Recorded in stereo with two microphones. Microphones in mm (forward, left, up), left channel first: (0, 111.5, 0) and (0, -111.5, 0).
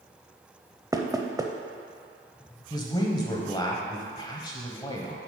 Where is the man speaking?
20° left (ahead or behind), 1.2 m.